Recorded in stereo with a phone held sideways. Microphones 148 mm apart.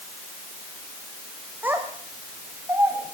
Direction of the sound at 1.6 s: 15° right (ahead or behind).